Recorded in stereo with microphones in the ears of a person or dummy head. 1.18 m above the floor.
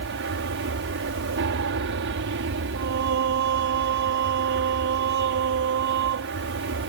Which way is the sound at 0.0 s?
55° right (ahead or behind).